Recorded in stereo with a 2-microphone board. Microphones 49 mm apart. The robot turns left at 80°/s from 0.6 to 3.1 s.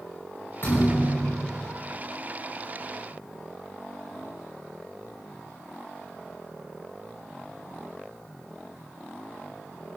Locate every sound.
0.6 s a thud: 75° left, 7 m; by 1.6 s straight ahead, 7 m